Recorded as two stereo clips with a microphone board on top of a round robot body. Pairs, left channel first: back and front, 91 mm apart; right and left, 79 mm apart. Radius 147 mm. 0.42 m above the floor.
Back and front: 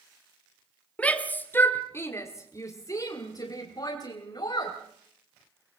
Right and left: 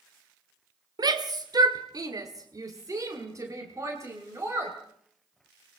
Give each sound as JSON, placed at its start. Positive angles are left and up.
{"t": 1.0, "sound": "a shout", "azimuth_deg": 105, "distance_m": 1.8}